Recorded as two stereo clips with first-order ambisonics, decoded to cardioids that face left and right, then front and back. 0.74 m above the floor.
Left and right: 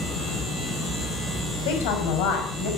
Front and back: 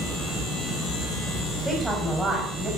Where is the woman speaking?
95° left, 5 m.